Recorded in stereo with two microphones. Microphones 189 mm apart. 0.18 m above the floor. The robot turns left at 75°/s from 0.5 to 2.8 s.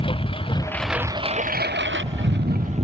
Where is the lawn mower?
30° left; by 2.9 s 145° right.